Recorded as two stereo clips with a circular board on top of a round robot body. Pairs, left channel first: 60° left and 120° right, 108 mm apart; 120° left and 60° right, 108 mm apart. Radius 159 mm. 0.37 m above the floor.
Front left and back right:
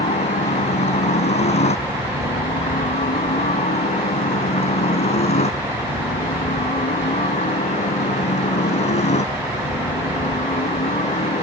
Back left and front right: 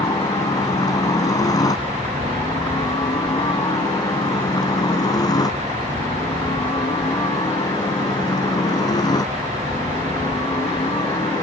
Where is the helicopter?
65° left.